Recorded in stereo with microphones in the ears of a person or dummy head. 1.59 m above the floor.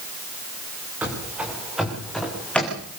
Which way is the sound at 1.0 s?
10° right (ahead or behind).